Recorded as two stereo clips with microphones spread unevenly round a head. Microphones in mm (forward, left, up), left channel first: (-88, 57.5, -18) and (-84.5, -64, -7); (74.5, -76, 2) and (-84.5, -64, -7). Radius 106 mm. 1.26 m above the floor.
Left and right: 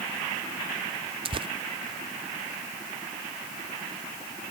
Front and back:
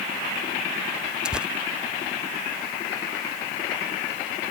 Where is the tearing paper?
105° right.